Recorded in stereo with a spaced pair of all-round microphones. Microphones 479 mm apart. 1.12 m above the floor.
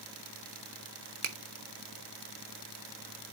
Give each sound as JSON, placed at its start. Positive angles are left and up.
{"t": 1.2, "sound": "a finger snap", "side_deg": -80, "distance_m": 0.7}